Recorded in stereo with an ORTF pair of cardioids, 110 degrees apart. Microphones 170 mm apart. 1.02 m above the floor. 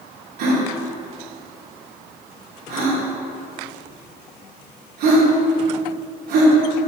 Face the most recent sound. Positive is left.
turn(degrees=-70)